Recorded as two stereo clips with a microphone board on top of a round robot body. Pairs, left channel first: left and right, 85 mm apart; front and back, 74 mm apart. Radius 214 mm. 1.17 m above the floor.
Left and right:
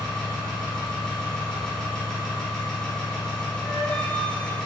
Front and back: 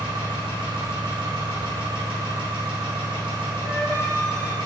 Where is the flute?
160° left, 3.5 m.